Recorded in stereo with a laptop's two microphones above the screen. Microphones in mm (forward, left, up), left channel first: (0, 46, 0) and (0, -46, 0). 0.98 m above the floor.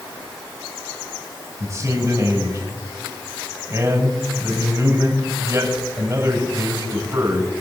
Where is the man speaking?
40° right (ahead or behind), 5 m.